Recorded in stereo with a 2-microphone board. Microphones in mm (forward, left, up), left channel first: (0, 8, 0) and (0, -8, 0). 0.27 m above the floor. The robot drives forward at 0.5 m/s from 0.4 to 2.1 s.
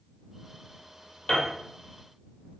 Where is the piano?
85° left, 2 m.